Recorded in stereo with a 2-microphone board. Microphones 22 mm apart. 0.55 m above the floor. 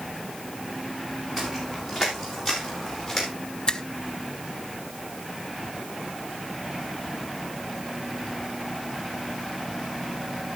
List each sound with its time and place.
1.4 s footsteps: 10° right (ahead or behind), 8 m; by 3.3 s 5° left (ahead or behind), 8 m
3.7 s a finger snap: 40° left (ahead or behind), 1.1 m